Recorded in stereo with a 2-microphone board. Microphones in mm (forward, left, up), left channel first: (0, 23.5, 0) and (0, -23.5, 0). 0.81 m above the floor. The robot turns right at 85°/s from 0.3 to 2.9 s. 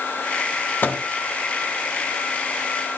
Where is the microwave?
45° left (ahead or behind), 0.8 m; by 1.0 s 25° left (ahead or behind), 0.8 m.